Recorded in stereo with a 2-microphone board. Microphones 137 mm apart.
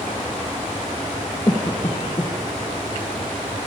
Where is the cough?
30° left (ahead or behind), 2 m.